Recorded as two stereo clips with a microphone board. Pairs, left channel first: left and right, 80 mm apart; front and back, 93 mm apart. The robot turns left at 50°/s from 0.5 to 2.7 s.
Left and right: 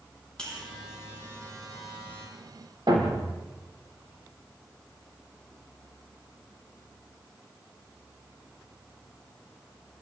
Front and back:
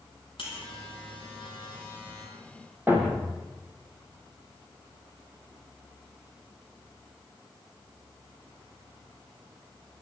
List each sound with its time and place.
0.4 s a buzzer: 10° left, 8 m; by 2.3 s 75° right, 8 m
2.9 s a thud: 115° right, 4 m